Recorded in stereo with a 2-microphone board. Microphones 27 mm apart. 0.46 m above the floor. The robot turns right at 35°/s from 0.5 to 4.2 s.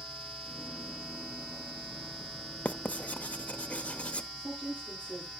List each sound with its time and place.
2.6 s writing: 60° left (ahead or behind), 0.7 m; by 4.3 s 45° left (ahead or behind), 0.7 m
4.4 s a woman speaking: 75° right (ahead or behind), 9 m